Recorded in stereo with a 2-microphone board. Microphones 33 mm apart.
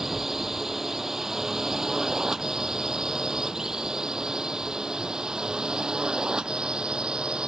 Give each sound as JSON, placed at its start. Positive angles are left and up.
{"t": 0.0, "sound": "a drone", "side_deg": -10}